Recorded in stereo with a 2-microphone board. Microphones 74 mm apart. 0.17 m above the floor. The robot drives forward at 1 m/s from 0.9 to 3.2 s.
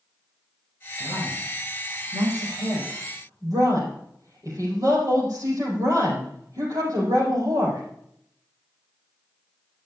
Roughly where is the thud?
No thud in this recording.